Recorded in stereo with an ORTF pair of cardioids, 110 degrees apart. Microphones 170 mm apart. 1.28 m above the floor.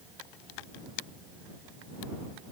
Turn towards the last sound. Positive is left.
No sound to turn to.